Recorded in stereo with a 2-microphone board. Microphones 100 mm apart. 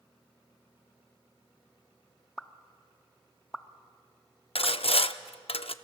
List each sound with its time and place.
2.4 s a pop: 5° left (ahead or behind), 0.7 m
4.5 s sawing: 70° left (ahead or behind), 0.5 m